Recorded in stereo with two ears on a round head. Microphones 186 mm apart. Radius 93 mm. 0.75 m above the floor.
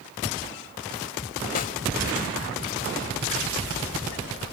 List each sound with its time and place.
1.6 s a snare drum: 40° left (ahead or behind)